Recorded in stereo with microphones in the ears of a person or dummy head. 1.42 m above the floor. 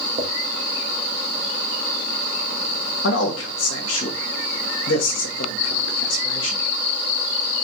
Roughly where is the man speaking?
Left.